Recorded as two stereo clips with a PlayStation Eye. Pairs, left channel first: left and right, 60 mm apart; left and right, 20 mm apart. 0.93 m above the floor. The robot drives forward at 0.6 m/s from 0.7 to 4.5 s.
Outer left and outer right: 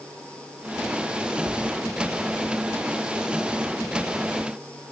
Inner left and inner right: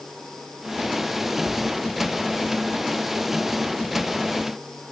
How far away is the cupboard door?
About 3 m.